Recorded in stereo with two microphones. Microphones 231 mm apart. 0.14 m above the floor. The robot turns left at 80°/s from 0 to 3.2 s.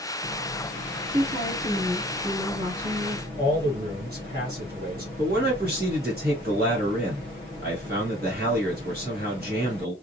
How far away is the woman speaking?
About 1.6 m.